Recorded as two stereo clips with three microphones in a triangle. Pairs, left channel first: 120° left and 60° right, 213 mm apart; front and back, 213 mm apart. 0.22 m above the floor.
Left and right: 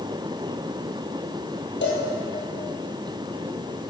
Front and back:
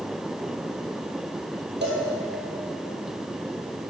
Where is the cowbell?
145° left, 2.5 m.